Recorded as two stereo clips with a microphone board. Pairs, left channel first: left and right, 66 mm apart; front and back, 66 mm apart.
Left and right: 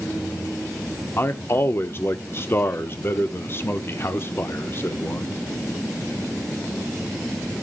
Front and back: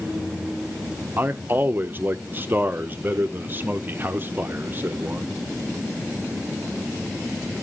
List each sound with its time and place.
1.2 s a man speaking: 130° left, 0.6 m